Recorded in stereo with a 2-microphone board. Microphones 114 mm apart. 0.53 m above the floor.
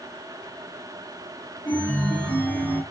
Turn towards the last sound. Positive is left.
turn(degrees=15)  # may be behind; listen again after turning